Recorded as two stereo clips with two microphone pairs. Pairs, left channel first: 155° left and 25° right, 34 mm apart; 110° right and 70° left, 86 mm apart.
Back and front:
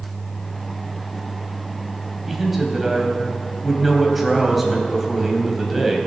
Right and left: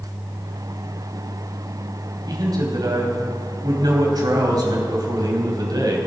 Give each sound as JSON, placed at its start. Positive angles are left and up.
{"t": 2.3, "sound": "a man speaking", "azimuth_deg": 60, "distance_m": 2.0}